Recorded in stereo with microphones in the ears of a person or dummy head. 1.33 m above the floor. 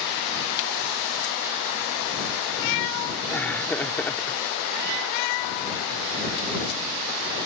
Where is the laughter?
10° left (ahead or behind).